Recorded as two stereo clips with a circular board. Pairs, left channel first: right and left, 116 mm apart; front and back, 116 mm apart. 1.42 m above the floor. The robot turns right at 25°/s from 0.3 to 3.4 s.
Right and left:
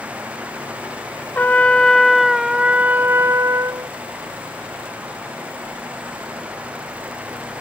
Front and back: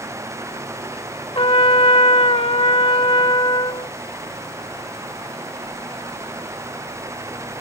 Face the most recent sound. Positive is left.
turn(degrees=30)